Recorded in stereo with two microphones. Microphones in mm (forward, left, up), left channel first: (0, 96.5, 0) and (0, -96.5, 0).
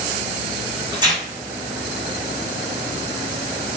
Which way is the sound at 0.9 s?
20° right (ahead or behind).